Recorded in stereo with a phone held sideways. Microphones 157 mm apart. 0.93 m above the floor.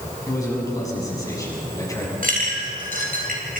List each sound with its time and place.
0.3 s a man speaking: 20° left (ahead or behind), 7 m
2.2 s a clink: 65° right (ahead or behind), 4 m